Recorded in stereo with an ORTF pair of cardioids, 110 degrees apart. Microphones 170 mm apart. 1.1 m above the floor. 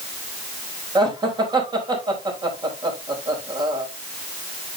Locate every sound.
0.9 s laughter: 25° right, 4.5 m